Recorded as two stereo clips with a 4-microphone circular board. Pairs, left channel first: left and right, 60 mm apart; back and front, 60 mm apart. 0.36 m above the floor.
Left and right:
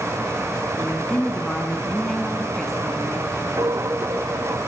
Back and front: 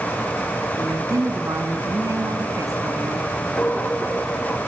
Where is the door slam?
I don't hear a door slam.